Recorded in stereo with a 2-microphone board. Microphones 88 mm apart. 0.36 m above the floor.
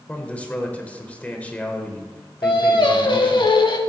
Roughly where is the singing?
Left.